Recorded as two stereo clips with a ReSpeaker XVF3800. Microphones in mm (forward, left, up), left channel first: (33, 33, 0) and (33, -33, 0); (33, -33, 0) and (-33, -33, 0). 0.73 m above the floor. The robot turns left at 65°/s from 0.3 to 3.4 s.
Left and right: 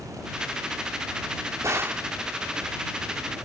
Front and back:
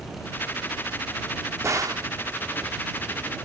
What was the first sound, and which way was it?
A gunshot, 130° right.